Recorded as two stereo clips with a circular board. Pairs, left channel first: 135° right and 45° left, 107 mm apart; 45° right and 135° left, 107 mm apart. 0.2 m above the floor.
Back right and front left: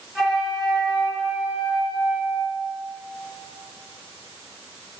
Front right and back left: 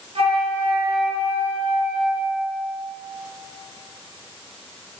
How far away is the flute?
About 0.9 m.